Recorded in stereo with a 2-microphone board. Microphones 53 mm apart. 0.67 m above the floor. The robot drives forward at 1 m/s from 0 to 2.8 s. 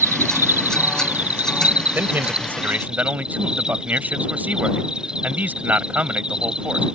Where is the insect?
65° right (ahead or behind); by 7.0 s 15° right (ahead or behind).